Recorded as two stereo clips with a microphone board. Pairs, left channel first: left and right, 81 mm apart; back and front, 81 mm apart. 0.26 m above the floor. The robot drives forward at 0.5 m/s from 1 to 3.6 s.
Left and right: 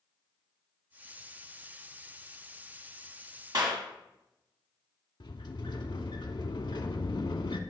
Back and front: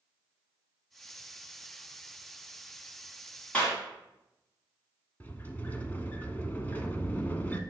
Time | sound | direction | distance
3.5 | a clap | 110° right | 2 m
5.2 | a sliding door | 110° left | 0.6 m